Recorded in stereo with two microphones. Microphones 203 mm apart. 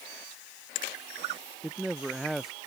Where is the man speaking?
Centre (ahead or behind).